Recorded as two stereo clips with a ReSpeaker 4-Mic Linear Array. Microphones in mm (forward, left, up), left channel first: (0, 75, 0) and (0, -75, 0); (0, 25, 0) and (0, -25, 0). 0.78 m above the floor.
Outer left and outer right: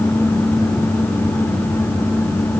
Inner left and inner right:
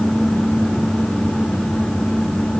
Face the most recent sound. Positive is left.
No sound to turn to.